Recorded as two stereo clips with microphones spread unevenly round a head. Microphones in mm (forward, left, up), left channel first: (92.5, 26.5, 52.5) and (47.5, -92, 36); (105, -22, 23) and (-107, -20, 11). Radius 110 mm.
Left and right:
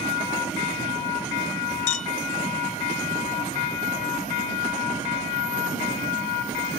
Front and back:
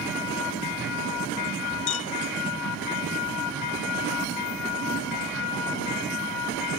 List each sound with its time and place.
1.9 s a clink: 55° left